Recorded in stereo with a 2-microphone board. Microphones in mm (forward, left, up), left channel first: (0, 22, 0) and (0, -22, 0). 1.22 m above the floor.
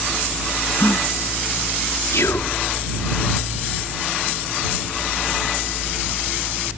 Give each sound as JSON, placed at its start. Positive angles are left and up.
{"t": 0.8, "sound": "a gasp", "side_deg": 70}
{"t": 2.1, "sound": "whispering", "side_deg": 85}